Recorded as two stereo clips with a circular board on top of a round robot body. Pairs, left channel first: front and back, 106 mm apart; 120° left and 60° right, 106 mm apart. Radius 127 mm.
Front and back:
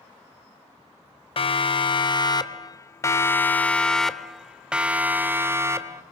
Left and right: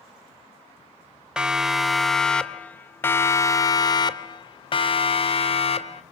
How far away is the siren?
About 2 m.